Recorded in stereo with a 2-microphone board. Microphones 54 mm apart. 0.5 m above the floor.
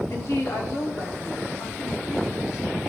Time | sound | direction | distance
0.1 | a woman speaking | 50° left (ahead or behind) | 1.5 m